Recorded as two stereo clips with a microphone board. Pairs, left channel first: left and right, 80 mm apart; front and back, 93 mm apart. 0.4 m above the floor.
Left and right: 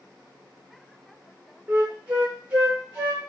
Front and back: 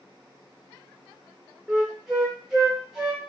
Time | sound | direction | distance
1.7 | a flute | 110° right | 0.9 m